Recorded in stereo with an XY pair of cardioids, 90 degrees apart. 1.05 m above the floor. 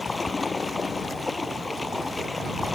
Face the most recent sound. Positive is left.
turn(degrees=15)